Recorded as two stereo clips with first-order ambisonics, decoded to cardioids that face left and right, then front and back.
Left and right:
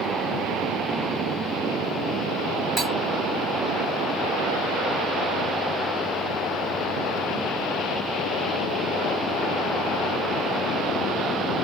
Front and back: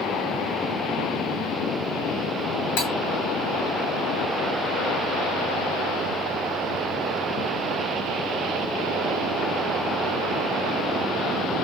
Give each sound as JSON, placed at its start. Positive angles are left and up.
{"t": 2.8, "sound": "cutlery clinking", "azimuth_deg": -10, "distance_m": 3.0}